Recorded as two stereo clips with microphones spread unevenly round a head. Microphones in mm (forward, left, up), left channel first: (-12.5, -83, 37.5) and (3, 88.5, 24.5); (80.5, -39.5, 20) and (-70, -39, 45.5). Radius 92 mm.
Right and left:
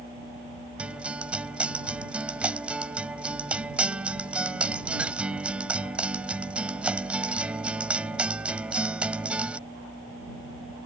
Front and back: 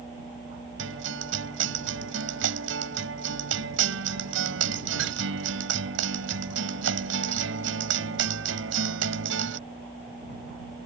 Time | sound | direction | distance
0.8 | a guitar | 170° left | ?